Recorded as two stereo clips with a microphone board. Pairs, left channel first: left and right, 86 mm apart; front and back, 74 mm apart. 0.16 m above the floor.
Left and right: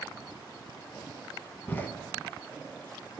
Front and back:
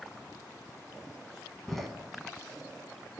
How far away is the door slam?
About 0.7 m.